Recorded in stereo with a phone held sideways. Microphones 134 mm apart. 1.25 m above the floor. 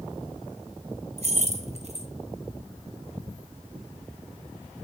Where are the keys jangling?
55° right (ahead or behind), 1.1 m.